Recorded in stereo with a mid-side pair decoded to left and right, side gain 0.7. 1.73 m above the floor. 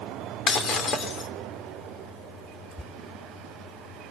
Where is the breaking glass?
45° left, 3 m.